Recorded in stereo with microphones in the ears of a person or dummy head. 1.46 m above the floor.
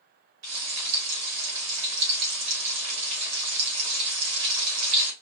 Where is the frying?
85° right, 2.5 m.